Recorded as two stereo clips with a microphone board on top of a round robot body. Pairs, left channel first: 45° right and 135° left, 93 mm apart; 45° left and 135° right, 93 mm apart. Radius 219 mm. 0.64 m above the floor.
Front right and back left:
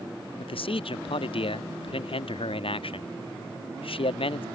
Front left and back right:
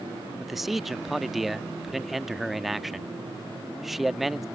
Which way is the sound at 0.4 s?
50° right.